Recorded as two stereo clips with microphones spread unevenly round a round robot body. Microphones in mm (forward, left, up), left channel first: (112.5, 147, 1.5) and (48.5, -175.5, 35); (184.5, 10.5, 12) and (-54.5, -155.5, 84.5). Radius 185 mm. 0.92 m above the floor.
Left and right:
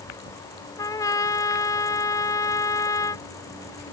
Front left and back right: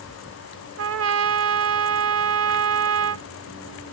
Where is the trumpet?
160° left.